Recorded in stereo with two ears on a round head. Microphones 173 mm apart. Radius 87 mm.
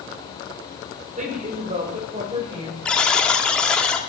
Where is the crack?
No crack in this recording.